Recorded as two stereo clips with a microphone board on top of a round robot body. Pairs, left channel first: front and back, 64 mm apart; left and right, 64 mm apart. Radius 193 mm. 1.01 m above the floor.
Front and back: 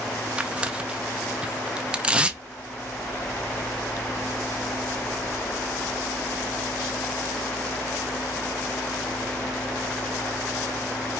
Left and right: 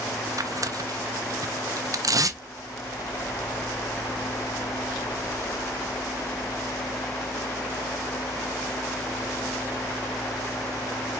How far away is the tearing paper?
About 0.6 m.